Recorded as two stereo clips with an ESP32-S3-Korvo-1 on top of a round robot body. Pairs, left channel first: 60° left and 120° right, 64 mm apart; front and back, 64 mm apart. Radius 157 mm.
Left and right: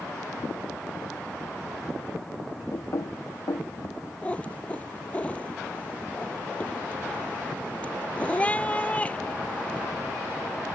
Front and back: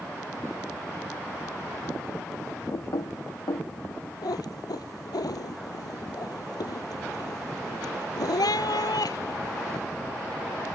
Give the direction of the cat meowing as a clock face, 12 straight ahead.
12 o'clock.